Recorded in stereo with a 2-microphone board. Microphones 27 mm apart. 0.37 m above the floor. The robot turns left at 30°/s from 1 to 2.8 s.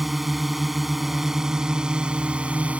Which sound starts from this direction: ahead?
A drone, at 0.0 s.